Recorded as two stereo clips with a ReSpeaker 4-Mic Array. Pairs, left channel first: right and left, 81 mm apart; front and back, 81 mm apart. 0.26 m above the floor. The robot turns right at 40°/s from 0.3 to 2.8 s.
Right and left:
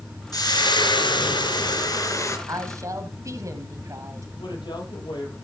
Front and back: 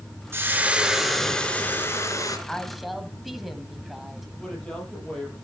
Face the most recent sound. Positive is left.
turn(degrees=-80)